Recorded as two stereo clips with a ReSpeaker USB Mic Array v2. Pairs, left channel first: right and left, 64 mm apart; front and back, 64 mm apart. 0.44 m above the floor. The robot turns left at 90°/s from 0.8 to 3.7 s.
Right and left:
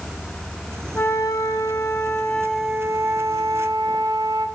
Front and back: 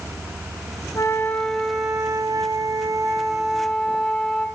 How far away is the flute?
About 1.1 m.